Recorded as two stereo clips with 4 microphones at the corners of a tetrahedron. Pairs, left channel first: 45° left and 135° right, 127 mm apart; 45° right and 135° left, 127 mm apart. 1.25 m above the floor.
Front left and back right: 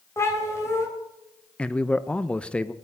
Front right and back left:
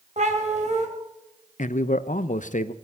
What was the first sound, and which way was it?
A cat meowing, 115° left.